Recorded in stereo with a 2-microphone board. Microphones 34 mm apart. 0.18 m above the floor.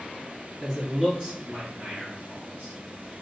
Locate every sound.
0.6 s a man speaking: centre (ahead or behind), 1.9 m; by 2.8 s 40° right (ahead or behind), 3.5 m